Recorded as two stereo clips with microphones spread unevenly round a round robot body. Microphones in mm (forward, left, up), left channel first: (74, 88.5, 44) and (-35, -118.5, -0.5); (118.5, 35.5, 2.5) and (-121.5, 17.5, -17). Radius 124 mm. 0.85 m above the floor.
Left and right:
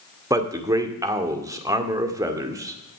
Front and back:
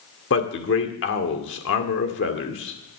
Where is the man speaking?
40° right, 2.0 m.